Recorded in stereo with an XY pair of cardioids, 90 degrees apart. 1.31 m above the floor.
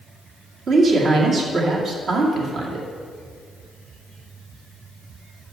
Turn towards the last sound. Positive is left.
turn(degrees=-65)